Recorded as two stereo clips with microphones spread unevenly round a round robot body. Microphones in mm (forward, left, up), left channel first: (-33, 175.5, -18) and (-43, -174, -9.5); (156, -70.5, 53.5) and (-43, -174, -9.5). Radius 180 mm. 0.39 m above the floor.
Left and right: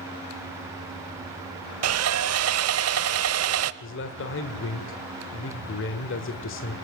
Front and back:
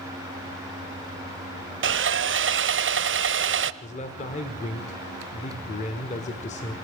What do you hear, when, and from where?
1.8 s sawing: 140° right, 0.9 m
3.8 s a man speaking: 95° left, 1.6 m